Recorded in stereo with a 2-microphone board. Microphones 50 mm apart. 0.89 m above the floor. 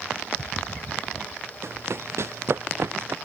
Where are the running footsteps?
65° right (ahead or behind).